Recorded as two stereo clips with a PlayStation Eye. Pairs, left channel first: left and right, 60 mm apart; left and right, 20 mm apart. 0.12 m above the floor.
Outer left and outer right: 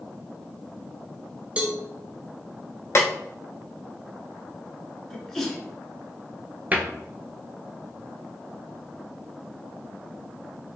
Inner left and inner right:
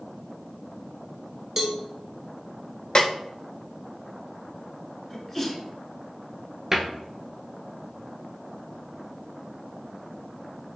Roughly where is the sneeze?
Centre.